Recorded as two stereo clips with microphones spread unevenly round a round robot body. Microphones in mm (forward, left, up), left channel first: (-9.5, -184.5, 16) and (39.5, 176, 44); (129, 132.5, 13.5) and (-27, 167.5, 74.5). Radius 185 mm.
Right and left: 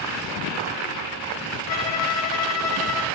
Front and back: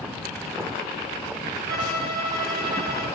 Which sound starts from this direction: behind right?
A violin, at 1.7 s.